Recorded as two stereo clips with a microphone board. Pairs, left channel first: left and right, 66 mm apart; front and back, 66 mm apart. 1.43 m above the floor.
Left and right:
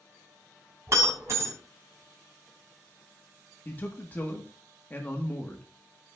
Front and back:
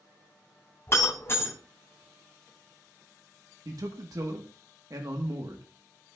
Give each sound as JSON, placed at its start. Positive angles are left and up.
{"t": 0.9, "sound": "breaking glass", "azimuth_deg": -50, "distance_m": 3.5}
{"t": 3.6, "sound": "a man speaking", "azimuth_deg": 150, "distance_m": 1.3}